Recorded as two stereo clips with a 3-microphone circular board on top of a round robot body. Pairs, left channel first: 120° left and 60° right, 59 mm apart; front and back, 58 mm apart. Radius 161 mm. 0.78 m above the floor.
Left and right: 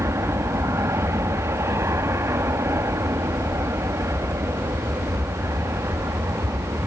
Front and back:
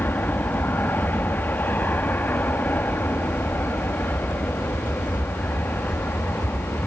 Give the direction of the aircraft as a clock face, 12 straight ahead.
2 o'clock.